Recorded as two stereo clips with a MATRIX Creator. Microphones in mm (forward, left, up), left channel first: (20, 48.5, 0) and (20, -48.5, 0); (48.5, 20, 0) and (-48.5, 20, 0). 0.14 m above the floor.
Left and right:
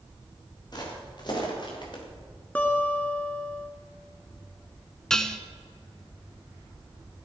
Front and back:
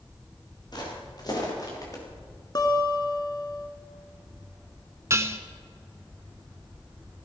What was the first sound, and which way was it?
Footsteps, 45° left.